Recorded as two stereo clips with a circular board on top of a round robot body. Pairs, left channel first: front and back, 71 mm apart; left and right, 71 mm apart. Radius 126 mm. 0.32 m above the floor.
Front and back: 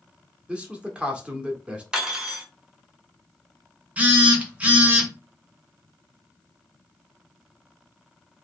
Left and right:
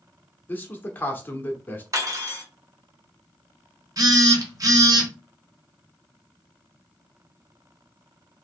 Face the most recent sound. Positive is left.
turn(degrees=-110)